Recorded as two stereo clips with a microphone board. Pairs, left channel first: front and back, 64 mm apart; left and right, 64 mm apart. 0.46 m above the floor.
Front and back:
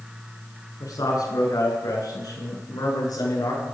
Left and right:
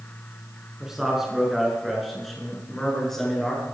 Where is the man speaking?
10° right, 6.5 m; by 3.6 s 5° left, 8 m.